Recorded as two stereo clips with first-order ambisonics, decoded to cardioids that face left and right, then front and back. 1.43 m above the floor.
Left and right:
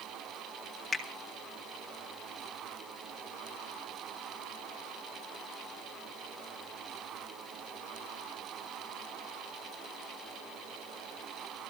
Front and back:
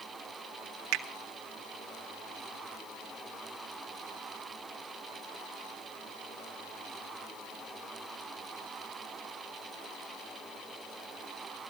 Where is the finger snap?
175° left, 1.6 m.